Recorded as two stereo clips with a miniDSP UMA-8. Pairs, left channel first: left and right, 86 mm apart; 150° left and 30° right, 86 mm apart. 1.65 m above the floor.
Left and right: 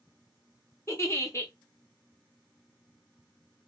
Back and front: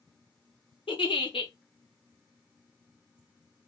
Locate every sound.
0.9 s a giggle: 145° left, 0.7 m